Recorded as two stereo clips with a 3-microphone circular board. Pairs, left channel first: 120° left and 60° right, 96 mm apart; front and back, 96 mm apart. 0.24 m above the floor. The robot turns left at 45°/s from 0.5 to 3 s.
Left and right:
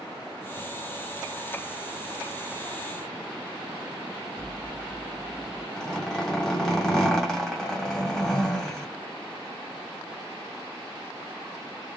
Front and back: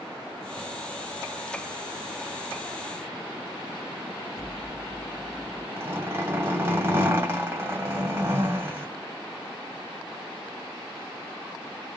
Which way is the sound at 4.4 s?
10° left.